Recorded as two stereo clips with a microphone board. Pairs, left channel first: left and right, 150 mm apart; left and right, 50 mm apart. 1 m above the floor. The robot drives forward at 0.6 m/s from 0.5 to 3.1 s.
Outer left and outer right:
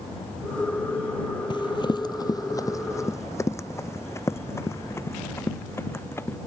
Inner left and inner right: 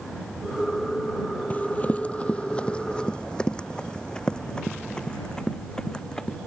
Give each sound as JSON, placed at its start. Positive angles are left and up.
{"t": 1.5, "sound": "running footsteps", "side_deg": 30}